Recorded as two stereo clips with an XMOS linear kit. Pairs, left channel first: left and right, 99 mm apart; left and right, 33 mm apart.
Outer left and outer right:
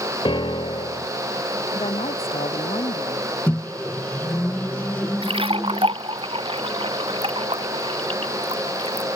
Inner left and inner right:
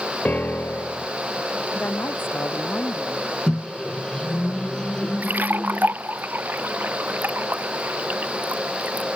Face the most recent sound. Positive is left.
turn(degrees=-65)  # may be behind; listen again after turning